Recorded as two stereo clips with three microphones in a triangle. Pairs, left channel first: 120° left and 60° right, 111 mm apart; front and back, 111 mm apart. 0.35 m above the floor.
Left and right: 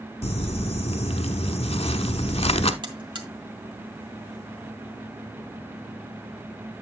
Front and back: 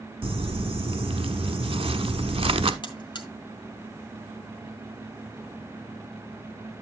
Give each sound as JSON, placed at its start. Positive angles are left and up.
{"t": 0.2, "sound": "crumpling", "azimuth_deg": 145, "distance_m": 0.8}
{"t": 2.8, "sound": "a buzzer", "azimuth_deg": -30, "distance_m": 1.6}